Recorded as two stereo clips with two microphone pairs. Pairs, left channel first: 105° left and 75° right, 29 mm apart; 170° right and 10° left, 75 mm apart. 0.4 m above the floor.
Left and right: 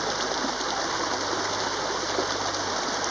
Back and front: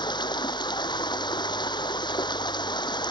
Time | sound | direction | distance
0.0 | running water | 170° right | ?